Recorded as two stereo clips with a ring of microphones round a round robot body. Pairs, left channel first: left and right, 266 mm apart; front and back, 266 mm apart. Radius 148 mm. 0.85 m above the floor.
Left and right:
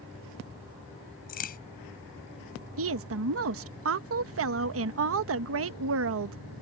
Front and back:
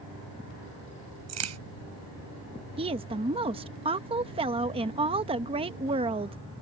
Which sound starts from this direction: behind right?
A woman speaking, at 2.8 s.